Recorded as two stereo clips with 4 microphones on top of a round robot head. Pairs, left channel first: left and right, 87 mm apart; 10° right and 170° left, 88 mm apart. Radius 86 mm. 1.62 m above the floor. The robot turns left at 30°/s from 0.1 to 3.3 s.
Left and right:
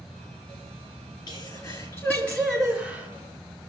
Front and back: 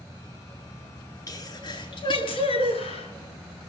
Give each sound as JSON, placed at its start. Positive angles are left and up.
{"t": 1.3, "sound": "a sneeze", "azimuth_deg": 45, "distance_m": 3.5}